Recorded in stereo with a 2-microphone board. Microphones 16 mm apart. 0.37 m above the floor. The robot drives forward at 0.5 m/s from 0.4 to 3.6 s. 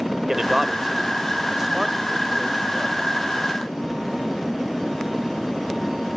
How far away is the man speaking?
About 1.3 m.